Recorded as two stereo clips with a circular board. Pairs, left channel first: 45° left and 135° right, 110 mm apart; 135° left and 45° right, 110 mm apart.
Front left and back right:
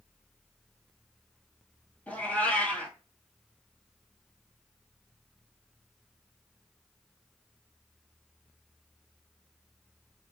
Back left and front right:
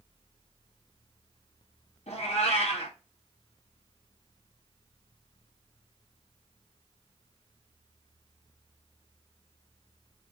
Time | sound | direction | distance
2.1 | a cat meowing | 125° left | 0.9 m